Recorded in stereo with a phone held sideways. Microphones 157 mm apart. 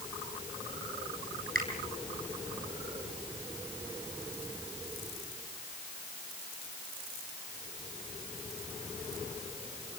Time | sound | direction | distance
1.6 | a finger snap | 65° right (ahead or behind) | 8 m